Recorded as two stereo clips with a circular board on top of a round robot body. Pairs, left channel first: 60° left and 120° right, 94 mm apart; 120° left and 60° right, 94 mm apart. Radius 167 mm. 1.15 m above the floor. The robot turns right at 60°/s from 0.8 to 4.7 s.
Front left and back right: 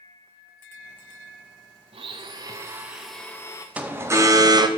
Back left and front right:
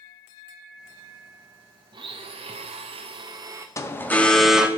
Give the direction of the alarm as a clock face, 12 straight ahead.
6 o'clock.